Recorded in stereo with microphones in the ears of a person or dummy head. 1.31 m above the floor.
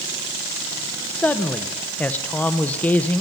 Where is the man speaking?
10° left (ahead or behind), 0.6 m.